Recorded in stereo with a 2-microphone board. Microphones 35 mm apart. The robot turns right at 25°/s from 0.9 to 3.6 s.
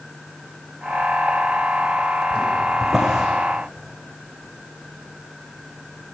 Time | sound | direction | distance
2.8 | a drawer | 5° right (ahead or behind) | 5.5 m